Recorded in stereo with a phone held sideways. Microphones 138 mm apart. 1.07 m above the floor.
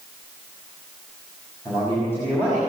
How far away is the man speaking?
About 5.5 m.